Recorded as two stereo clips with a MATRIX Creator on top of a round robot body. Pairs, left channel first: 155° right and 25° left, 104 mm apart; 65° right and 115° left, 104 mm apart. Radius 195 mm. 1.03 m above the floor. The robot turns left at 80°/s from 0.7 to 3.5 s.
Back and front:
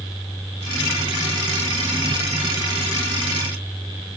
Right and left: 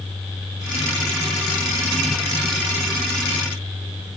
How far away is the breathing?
No breathing in this recording.